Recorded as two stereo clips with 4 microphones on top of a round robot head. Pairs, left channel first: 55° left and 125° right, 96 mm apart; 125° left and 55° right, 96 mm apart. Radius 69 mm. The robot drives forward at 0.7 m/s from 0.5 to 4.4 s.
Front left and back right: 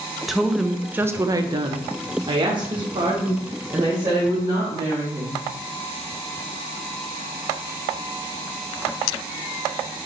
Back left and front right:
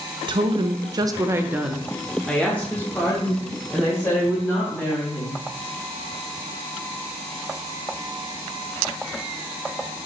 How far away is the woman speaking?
About 0.8 m.